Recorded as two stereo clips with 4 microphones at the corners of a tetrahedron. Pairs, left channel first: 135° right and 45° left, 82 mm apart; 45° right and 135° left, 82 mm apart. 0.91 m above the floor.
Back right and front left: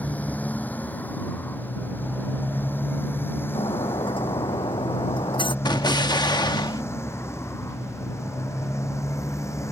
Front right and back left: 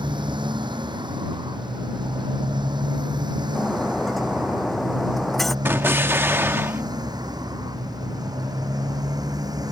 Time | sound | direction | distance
0.0 | a motorcycle | 155° left | ?
3.5 | breaking glass | 135° right | ?
5.7 | an explosion | 165° right | ?